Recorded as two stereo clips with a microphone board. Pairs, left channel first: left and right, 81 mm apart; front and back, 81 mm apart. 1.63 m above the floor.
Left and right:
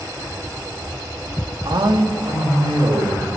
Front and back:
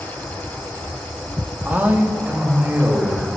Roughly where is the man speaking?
Right.